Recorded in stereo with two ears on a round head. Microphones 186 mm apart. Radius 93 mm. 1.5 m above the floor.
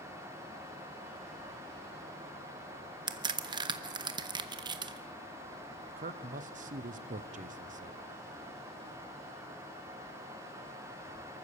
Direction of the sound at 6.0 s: 40° right (ahead or behind).